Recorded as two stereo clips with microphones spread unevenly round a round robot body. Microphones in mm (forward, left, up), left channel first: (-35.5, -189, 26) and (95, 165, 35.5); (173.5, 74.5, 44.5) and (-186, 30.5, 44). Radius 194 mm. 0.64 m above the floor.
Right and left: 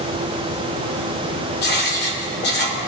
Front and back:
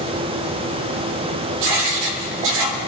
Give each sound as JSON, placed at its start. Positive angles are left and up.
{"t": 1.6, "sound": "writing", "azimuth_deg": -175, "distance_m": 1.3}